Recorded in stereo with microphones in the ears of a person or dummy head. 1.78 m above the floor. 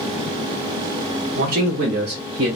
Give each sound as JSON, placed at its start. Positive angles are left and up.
{"t": 1.4, "sound": "a man speaking", "side_deg": -40, "distance_m": 0.8}